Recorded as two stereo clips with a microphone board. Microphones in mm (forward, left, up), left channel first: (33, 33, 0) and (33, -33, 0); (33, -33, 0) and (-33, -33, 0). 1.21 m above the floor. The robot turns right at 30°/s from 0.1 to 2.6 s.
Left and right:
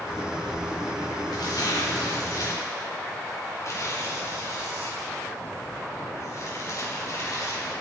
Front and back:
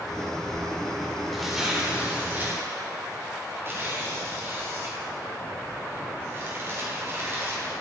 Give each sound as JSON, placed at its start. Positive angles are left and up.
{"t": 1.3, "sound": "tearing paper", "azimuth_deg": 90, "distance_m": 4.0}